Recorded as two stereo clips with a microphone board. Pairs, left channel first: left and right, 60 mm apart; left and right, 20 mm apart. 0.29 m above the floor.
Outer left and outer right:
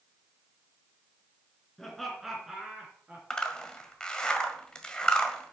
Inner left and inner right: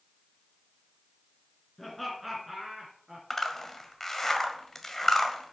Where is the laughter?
10° left (ahead or behind), 3.5 m; by 3.2 s 25° right (ahead or behind), 4 m.